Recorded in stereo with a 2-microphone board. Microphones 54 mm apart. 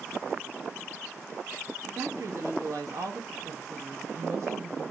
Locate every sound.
1.9 s a woman speaking: 60° right (ahead or behind), 1.7 m; by 4.9 s 55° right (ahead or behind), 1.6 m